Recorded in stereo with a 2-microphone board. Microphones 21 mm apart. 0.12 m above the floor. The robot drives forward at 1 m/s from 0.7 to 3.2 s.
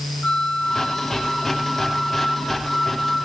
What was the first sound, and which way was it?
A flute, 40° left (ahead or behind).